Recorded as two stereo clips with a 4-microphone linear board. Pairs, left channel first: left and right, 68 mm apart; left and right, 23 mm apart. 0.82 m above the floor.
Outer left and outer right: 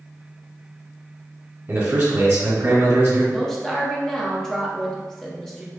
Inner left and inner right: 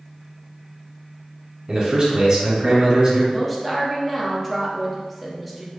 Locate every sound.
1.7 s a man speaking: 30° right (ahead or behind), 1.2 m
3.3 s a woman speaking: 5° left (ahead or behind), 0.5 m